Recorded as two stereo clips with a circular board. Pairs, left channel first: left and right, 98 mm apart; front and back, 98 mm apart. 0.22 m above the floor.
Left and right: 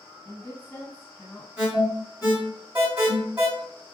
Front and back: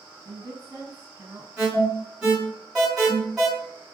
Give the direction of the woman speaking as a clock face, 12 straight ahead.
7 o'clock.